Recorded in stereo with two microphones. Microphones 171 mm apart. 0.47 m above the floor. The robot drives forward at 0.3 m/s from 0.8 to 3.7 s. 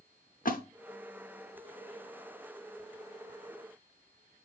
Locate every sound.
0.5 s a splash: 50° left (ahead or behind), 0.7 m